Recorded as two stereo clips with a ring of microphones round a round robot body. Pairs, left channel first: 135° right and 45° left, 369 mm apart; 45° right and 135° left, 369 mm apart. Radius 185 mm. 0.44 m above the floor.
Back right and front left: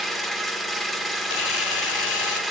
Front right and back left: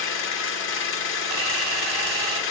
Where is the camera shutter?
175° right, 1.4 m.